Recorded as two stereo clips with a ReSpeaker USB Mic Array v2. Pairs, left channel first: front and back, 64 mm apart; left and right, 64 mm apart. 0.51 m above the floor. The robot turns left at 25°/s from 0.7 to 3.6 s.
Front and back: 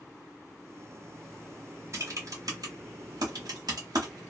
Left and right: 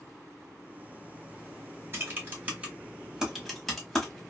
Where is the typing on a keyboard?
140° right, 1.1 m; by 4.2 s 175° left, 1.1 m.